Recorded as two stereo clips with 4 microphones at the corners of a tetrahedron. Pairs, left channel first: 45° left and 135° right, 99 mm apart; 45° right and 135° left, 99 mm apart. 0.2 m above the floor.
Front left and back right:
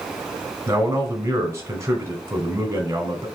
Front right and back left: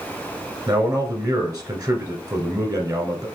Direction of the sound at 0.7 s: 170° left.